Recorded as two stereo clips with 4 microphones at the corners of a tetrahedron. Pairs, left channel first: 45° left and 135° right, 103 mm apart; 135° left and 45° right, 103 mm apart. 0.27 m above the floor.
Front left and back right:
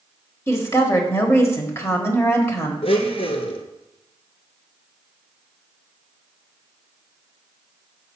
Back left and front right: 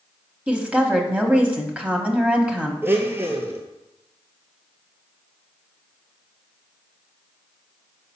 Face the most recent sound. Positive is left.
turn(degrees=25)